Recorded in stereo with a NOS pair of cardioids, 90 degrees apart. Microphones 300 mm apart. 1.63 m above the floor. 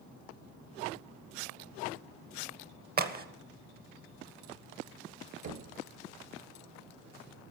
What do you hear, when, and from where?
3.0 s a crack: 30° right, 1.2 m
5.4 s knocking: 60° right, 1.6 m